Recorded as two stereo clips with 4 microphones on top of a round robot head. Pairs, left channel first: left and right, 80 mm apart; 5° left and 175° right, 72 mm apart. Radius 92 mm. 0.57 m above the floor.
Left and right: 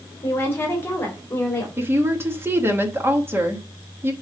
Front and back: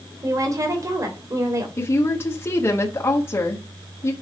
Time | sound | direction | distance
0.2 | a woman speaking | 150° left | 2.5 m
1.8 | a woman speaking | 40° right | 1.5 m